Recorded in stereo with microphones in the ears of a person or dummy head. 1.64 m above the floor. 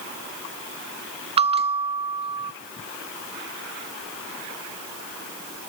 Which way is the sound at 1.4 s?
25° right (ahead or behind).